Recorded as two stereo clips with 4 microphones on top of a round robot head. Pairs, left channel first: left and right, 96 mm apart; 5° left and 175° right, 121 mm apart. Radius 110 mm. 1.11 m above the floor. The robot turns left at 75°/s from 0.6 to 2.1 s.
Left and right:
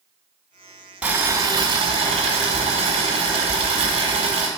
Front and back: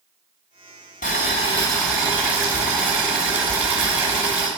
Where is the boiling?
15° right, 1.5 m; by 4.5 s 95° right, 1.5 m.